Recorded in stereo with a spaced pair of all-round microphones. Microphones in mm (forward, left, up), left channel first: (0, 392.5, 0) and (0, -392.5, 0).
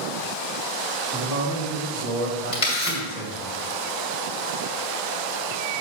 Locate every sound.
1.1 s a man speaking: 15° right (ahead or behind), 2 m; by 3.5 s 75° right (ahead or behind), 2.5 m
2.5 s a camera shutter: 50° left (ahead or behind), 2.5 m